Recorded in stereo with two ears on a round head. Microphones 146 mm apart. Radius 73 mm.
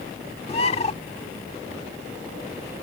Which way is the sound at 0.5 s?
40° left (ahead or behind).